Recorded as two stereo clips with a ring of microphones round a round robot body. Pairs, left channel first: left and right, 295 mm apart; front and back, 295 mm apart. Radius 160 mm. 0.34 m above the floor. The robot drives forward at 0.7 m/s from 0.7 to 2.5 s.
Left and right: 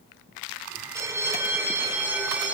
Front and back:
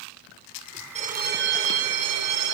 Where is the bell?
155° right, 1.0 m; by 2.5 s 175° right, 1.7 m.